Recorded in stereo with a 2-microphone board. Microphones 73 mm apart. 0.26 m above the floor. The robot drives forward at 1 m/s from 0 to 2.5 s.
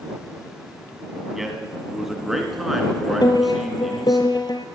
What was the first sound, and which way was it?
A man speaking, 5° right (ahead or behind).